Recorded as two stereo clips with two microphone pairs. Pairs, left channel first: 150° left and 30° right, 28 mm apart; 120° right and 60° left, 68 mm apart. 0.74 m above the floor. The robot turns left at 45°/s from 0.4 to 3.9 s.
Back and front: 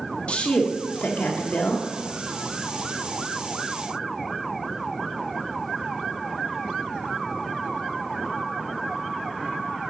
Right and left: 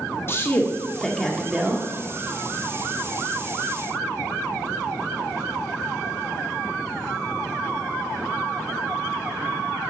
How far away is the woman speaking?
About 1.3 m.